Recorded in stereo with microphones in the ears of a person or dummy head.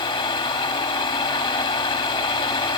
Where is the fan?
30° left (ahead or behind), 1.4 m.